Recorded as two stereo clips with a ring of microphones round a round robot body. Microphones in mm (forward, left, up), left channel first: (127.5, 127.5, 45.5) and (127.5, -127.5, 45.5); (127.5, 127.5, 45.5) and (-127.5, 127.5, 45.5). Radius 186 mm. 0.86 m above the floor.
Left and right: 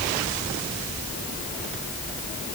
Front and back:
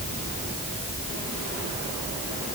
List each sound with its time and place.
Only background noise.